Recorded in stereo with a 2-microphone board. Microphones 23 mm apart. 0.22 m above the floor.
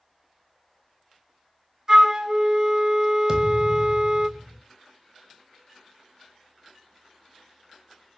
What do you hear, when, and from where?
1.9 s a flute: 25° right (ahead or behind), 0.5 m
3.3 s a thud: 10° right (ahead or behind), 1.4 m